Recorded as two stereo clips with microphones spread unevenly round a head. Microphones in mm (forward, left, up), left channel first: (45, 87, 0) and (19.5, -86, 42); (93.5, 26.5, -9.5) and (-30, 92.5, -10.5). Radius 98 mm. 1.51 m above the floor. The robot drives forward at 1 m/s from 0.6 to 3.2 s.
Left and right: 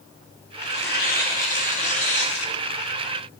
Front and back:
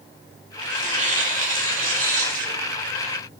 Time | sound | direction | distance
0.6 | tearing paper | 125° left | 3 m